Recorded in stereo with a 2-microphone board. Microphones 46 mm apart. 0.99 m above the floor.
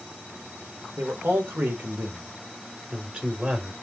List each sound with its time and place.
1.0 s a man speaking: 60° right (ahead or behind), 3 m; by 3.7 s 20° right (ahead or behind), 2.5 m